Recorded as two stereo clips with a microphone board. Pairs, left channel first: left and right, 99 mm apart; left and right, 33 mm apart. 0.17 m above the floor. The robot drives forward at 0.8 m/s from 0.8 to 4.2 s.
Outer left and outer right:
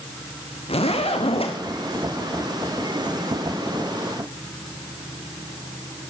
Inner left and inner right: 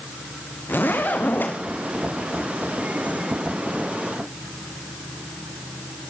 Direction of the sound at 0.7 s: 80° left.